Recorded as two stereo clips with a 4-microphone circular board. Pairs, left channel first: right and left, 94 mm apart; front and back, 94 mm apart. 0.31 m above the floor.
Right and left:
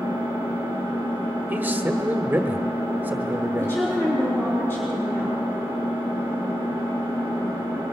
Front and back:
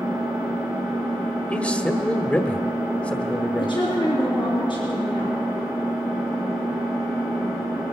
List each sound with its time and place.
0.0 s an engine running: 105° right, 5.5 m
1.5 s a man speaking: 55° left, 0.9 m
3.6 s a woman speaking: 30° right, 3.5 m